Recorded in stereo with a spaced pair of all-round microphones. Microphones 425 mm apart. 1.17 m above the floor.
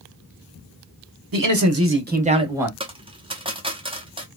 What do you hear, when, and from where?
1.3 s a man speaking: 55° right (ahead or behind), 0.8 m; by 2.7 s 5° right (ahead or behind), 1.0 m
2.8 s a dropped coin: 10° right (ahead or behind), 0.7 m